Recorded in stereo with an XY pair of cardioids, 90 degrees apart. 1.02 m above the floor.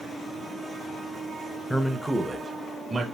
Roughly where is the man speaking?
Ahead.